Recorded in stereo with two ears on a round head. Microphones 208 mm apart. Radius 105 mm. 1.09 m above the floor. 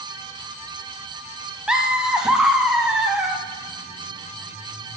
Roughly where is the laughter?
Centre.